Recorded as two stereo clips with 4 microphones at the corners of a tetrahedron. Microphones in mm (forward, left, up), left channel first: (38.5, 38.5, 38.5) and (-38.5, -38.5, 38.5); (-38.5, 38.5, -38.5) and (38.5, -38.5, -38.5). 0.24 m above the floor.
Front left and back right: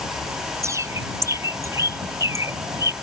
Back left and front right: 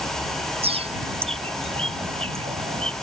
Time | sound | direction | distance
0.6 | a bird | 75° right | ?